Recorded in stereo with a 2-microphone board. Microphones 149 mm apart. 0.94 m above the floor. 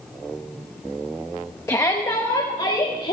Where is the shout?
20° left (ahead or behind), 1.1 m; by 3.1 s 50° left (ahead or behind), 2.5 m.